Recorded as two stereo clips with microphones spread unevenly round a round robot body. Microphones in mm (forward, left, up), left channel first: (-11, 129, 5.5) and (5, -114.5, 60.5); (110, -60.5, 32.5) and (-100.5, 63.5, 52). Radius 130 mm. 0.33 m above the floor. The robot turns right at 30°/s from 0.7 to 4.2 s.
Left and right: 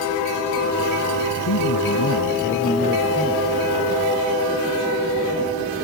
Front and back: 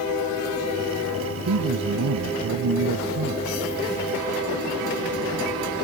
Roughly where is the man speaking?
Behind left.